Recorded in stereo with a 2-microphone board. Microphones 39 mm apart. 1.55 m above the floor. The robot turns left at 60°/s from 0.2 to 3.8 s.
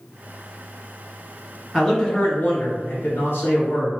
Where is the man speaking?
Straight behind, 1.3 m; by 3.9 s 55° left, 1.3 m.